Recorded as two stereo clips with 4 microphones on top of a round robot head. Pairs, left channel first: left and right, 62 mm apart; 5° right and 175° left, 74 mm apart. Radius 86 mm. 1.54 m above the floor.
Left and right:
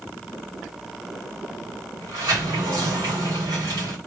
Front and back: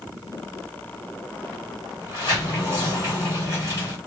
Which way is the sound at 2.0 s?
70° right.